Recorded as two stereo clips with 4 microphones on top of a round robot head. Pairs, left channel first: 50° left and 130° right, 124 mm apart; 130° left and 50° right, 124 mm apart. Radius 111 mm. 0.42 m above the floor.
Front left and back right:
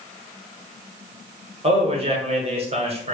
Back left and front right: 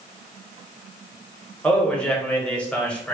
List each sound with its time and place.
1.6 s a man speaking: 150° right, 1.5 m